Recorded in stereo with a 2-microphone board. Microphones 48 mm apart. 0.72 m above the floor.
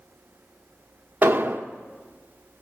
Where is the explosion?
40° right (ahead or behind), 2.0 m.